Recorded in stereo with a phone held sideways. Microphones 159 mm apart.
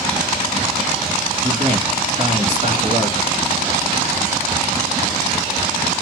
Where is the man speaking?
35° right (ahead or behind), 2.5 m.